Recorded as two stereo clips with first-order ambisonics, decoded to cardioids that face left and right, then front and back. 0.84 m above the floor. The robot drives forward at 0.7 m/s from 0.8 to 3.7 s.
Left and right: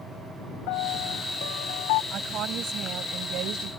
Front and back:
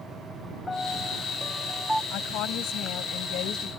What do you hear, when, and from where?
0.7 s a piano: 80° left; by 2.0 s 95° left
2.1 s a woman speaking: 40° right; by 3.7 s 50° right